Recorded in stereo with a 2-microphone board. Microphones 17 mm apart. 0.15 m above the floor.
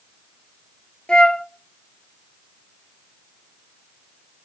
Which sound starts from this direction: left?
A flute, at 1.1 s.